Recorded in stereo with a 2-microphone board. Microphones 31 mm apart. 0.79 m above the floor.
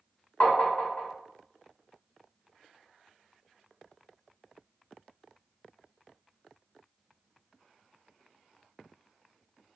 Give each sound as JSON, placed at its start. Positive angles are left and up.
{"t": 0.4, "sound": "tapping", "side_deg": 60, "distance_m": 1.4}